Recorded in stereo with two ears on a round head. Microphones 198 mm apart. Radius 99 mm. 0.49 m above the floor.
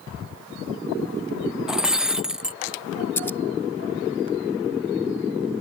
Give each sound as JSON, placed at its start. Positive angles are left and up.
{"t": 1.7, "sound": "breaking glass", "side_deg": -5}
{"t": 3.2, "sound": "scissors", "side_deg": 10}